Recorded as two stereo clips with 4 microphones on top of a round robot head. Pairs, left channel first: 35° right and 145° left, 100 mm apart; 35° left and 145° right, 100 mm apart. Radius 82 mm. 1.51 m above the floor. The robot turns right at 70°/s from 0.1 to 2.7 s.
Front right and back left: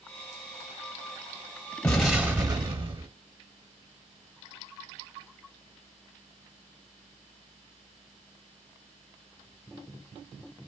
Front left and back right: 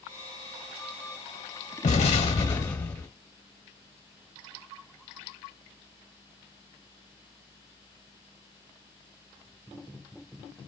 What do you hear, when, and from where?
1.8 s an explosion: 40° left, 0.9 m; by 3.1 s 100° left, 0.9 m